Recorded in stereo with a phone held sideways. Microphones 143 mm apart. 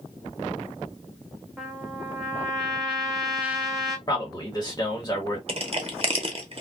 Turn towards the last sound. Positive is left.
turn(degrees=-45)  # may be behind; listen again after turning